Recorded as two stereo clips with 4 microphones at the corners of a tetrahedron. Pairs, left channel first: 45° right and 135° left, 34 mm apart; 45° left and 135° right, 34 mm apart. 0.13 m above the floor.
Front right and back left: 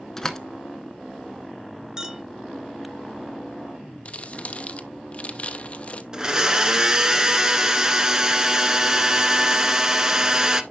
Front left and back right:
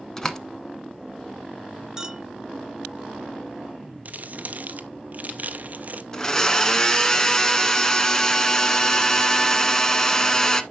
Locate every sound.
0.2 s a door slam: straight ahead, 0.8 m
2.0 s a clink: 175° left, 0.7 m
4.0 s crumpling: 100° right, 0.6 m
6.1 s a blender: 95° left, 0.7 m